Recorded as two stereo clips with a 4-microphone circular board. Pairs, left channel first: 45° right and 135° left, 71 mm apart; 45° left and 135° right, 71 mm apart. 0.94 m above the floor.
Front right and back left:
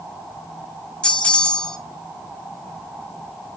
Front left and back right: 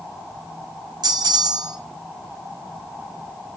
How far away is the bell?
About 1.8 m.